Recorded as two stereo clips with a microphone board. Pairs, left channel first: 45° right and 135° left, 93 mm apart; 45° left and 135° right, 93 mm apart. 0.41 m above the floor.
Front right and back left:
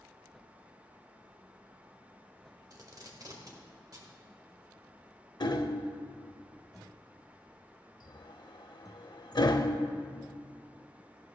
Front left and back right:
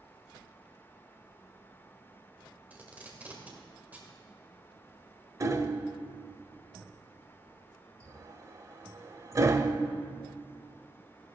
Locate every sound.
2.7 s tape being pulled: 160° left, 1.6 m
5.4 s hammering: 80° right, 0.5 m